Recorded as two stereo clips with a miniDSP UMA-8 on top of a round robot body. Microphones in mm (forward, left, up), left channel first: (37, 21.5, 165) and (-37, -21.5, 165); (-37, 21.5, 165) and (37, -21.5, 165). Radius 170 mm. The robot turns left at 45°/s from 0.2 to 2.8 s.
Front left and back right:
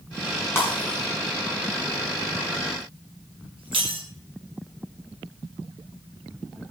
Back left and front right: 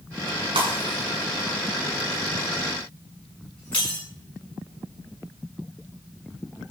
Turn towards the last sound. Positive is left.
turn(degrees=-135)